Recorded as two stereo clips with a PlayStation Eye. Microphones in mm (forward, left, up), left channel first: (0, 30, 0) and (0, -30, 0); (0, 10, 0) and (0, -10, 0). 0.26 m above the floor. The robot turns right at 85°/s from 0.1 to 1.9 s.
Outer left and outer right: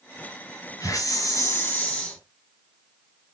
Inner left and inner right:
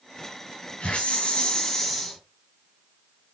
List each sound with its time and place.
0.8 s a hiss: 65° left, 4 m; by 2.2 s 160° left, 4 m